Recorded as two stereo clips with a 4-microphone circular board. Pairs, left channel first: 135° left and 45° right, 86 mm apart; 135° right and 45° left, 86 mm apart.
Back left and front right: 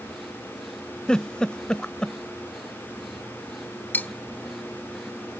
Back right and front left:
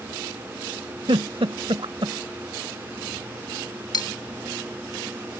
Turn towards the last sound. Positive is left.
turn(degrees=-160)